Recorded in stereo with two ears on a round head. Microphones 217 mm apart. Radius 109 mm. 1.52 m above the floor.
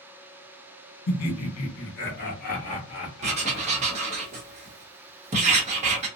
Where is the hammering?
I don't hear hammering.